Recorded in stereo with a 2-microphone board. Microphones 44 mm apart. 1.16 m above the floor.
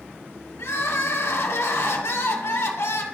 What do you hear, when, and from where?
0.6 s crying: 85° left, 1.4 m